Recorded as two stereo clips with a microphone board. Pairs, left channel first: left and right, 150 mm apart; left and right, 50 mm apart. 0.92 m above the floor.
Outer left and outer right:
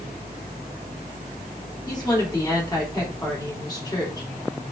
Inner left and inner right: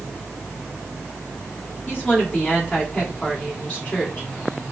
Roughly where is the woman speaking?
Left.